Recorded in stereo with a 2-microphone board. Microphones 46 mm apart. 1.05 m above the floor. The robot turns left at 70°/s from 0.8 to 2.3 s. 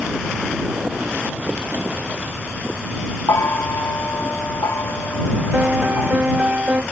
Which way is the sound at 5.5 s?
35° right (ahead or behind).